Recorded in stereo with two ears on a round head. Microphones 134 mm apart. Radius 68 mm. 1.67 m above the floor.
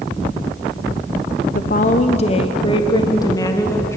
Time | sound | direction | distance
1.6 | a woman speaking | 60° left (ahead or behind) | 1.1 m